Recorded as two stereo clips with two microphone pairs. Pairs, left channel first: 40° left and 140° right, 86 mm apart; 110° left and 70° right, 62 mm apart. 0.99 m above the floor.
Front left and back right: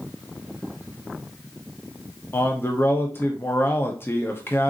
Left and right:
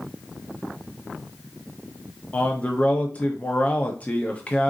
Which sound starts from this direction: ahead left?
A man speaking, at 2.3 s.